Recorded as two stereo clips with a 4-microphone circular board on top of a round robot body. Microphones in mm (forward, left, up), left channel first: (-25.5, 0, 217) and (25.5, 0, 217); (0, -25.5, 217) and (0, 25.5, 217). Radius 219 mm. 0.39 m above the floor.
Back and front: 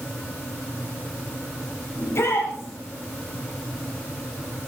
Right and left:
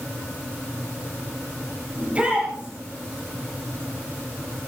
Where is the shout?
155° left, 5 m.